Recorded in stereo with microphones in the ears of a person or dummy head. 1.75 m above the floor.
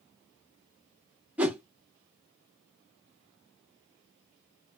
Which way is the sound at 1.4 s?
10° right (ahead or behind).